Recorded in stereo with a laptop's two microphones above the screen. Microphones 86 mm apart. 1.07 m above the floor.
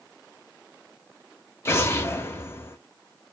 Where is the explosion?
30° left (ahead or behind), 0.6 m.